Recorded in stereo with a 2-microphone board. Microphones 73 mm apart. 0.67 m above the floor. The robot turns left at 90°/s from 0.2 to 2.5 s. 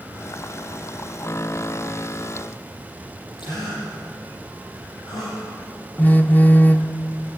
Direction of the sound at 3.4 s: 80° left.